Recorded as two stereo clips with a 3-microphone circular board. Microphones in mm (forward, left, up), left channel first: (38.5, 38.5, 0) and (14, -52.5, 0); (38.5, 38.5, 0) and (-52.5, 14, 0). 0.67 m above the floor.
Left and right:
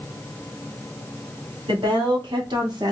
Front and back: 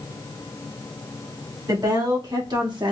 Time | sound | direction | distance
1.7 | a woman speaking | 125° right | 1.9 m